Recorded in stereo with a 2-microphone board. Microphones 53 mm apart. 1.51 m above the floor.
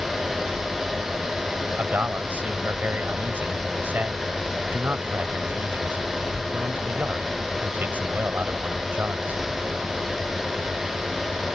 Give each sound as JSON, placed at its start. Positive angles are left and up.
{"t": 1.8, "sound": "a man speaking", "side_deg": -35}